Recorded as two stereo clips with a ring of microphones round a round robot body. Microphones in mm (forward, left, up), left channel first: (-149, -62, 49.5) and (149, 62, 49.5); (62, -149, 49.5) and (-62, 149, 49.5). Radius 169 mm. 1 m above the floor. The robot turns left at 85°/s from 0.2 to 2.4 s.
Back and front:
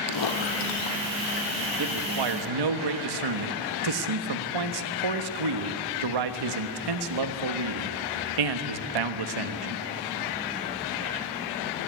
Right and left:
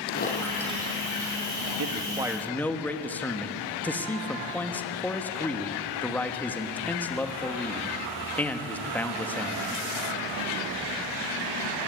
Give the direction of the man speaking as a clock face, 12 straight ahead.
10 o'clock.